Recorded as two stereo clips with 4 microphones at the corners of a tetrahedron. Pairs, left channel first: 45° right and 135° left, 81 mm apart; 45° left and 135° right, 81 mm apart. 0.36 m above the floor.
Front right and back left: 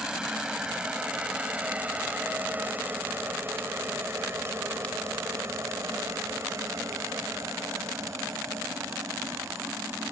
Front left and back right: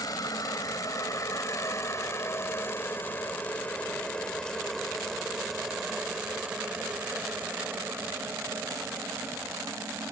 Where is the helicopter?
55° left; by 10.1 s straight behind.